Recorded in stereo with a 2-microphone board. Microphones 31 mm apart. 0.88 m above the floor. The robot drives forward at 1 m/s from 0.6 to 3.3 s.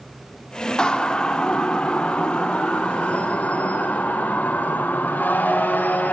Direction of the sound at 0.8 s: 25° left (ahead or behind).